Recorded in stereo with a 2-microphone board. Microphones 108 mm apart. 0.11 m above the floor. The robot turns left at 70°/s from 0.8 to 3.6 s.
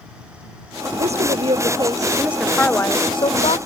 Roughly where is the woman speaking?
Right.